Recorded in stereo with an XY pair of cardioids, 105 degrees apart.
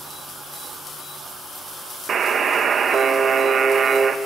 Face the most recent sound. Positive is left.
turn(degrees=-45)